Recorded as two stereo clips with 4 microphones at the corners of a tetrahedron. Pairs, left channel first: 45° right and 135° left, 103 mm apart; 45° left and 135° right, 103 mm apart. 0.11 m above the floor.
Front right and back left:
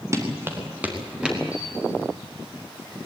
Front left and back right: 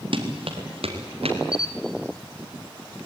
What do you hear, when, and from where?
0.1 s running footsteps: 165° right, 3.5 m; by 1.4 s 145° right, 4.5 m
1.5 s a camera shutter: 60° left, 1.2 m